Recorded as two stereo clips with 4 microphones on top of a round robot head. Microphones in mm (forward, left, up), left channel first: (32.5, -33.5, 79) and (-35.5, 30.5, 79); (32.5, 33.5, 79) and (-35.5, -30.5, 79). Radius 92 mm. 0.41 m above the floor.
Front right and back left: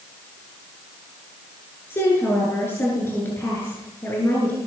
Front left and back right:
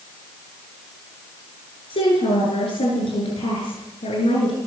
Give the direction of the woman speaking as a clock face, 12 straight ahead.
11 o'clock.